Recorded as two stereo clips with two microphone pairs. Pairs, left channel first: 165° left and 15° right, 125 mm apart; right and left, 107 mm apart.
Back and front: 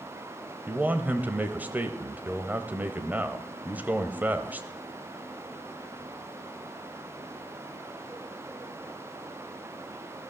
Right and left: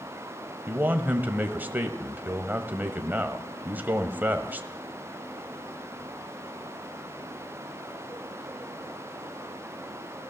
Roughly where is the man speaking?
Ahead left.